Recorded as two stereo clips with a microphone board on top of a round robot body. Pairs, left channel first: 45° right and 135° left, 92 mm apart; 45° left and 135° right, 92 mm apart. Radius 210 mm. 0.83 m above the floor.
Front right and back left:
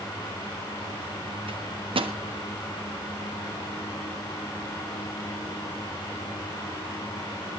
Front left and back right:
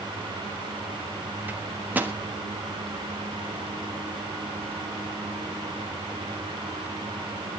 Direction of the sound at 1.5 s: 155° left.